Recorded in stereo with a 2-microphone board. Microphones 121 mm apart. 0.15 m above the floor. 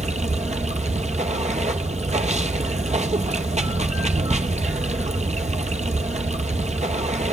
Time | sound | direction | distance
0.0 | running water | 70° right (ahead or behind) | 0.8 m